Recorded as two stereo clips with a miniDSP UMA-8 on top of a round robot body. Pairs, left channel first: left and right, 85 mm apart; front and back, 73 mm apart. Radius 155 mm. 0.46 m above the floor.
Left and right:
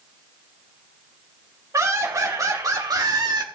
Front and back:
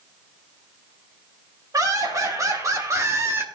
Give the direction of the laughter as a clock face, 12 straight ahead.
5 o'clock.